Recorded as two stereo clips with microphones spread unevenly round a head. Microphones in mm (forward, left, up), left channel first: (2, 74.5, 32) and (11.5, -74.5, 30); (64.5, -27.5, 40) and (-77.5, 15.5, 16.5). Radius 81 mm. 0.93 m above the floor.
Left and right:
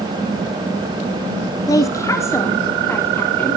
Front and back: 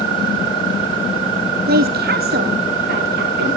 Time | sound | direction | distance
1.7 | a woman speaking | 160° left | 1.6 m